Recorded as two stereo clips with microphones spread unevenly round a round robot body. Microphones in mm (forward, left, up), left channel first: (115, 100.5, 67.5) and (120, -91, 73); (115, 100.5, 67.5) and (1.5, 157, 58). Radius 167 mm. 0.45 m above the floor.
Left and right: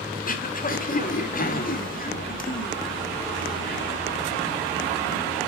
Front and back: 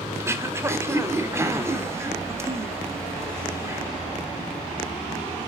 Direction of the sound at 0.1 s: 95° left.